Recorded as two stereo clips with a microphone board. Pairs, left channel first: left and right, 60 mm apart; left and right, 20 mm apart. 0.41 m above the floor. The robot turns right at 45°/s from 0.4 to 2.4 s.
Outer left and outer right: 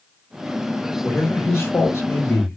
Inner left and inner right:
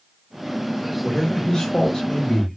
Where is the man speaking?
50° left, 1.2 m; by 2.6 s 115° left, 1.2 m.